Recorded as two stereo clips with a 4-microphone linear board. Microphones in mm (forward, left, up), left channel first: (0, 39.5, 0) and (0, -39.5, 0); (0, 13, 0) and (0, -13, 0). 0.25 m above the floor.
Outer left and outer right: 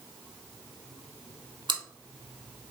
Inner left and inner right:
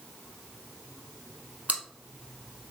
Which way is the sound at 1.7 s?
80° right.